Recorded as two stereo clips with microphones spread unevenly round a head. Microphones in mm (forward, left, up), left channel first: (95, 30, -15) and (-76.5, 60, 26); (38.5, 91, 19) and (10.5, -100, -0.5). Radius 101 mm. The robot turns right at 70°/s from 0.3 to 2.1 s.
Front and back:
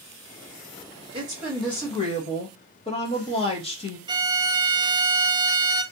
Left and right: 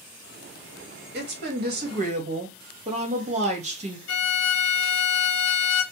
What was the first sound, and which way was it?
A woman speaking, 120° right.